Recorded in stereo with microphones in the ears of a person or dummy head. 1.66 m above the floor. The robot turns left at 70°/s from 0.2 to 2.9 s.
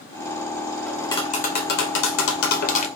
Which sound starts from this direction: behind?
Tapping, at 0.9 s.